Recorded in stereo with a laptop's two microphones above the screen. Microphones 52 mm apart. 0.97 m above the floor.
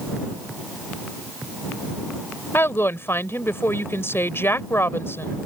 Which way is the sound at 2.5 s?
50° left (ahead or behind).